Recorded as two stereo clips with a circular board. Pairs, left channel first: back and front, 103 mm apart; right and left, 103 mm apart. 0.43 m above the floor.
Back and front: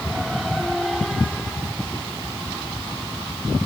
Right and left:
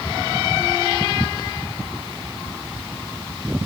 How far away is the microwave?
I don't hear a microwave.